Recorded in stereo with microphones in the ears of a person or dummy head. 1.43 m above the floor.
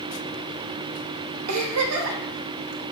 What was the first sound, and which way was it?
A giggle, 80° right.